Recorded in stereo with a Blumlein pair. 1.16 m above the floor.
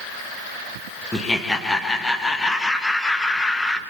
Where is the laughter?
10° left, 1.1 m.